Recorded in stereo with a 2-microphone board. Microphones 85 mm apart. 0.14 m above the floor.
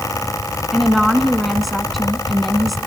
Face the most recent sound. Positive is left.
turn(degrees=0)  # may be behind; listen again after turning